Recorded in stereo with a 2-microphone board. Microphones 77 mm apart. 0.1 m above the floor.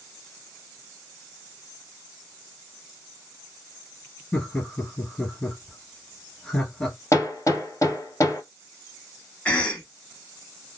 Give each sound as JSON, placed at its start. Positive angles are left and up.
{"t": 4.3, "sound": "laughter", "side_deg": 15, "distance_m": 1.9}
{"t": 7.1, "sound": "hammering", "side_deg": 40, "distance_m": 1.5}
{"t": 9.4, "sound": "a cough", "side_deg": 15, "distance_m": 1.1}